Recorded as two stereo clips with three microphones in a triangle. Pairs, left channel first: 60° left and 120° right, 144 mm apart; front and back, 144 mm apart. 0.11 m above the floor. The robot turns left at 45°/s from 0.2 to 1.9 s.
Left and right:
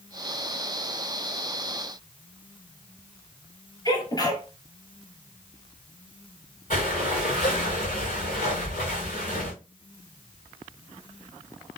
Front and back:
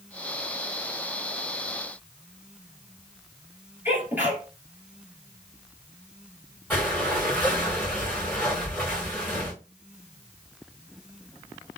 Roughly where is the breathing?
Left.